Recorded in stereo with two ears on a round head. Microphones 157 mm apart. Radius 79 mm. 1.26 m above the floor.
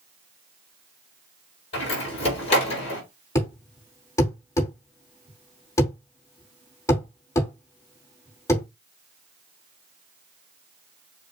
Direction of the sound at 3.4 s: 20° left (ahead or behind).